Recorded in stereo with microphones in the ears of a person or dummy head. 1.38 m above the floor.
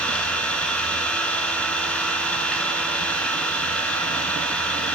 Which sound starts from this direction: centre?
An engine running, at 0.0 s.